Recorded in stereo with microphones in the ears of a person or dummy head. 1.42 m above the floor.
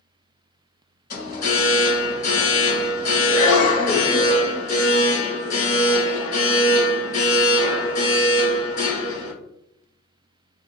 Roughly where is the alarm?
Left.